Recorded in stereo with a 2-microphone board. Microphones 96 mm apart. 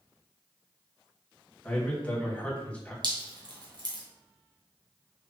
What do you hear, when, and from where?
1.6 s a man speaking: 15° left (ahead or behind), 1.5 m
3.0 s dripping: 50° right (ahead or behind), 1.8 m